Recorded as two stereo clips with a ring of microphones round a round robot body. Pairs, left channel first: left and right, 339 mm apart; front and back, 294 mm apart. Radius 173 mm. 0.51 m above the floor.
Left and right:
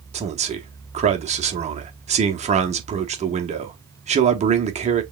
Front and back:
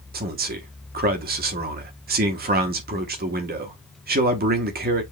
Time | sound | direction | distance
0.1 | a man speaking | 150° right | 1.0 m